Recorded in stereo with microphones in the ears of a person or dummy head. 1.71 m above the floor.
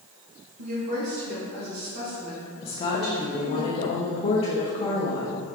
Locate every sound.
0.6 s a woman speaking: 65° right (ahead or behind), 1.9 m; by 3.6 s 85° right, 4.5 m
2.6 s a woman speaking: 30° left (ahead or behind), 1.0 m